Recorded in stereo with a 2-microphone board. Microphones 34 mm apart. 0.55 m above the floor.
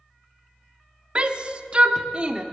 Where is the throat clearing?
I don't hear throat clearing.